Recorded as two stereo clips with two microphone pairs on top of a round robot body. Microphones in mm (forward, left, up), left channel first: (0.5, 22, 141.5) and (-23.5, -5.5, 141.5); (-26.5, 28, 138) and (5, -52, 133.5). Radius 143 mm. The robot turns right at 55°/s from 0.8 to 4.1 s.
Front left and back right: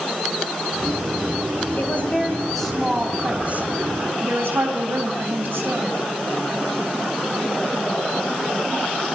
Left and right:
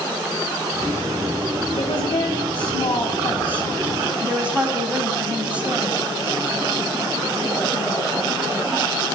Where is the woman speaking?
85° left, 4 m; by 6.0 s 145° right, 4 m.